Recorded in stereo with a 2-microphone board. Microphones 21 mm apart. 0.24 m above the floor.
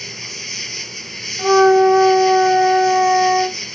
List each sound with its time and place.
0.0 s an insect: 5° left (ahead or behind)
1.4 s a flute: 30° right (ahead or behind)